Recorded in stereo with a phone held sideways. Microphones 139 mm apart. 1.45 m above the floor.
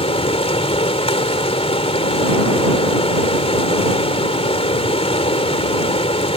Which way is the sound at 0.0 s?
45° left (ahead or behind).